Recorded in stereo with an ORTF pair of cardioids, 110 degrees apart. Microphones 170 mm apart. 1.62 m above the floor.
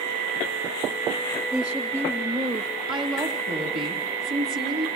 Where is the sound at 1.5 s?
10° right, 2.5 m; by 2.7 s 25° right, 1.4 m.